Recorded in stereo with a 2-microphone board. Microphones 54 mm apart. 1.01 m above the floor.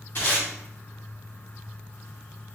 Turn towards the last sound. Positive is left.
turn(degrees=45)  # may be behind; listen again after turning